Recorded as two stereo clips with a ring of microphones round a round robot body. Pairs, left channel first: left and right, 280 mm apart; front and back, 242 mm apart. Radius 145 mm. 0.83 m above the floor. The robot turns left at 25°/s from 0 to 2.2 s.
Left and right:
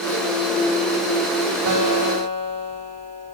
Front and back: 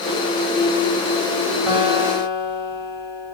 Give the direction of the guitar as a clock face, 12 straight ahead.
3 o'clock.